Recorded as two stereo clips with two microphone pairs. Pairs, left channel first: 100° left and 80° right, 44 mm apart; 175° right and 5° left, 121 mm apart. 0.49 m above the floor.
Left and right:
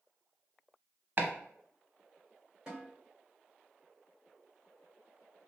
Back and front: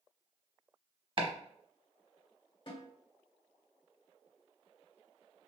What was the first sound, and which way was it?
Chopping, 35° right.